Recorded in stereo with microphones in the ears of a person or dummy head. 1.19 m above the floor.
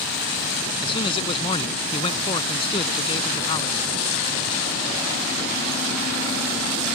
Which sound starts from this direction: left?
A man speaking, at 0.8 s.